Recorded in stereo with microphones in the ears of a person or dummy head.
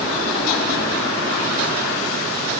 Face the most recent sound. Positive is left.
No sound to turn to.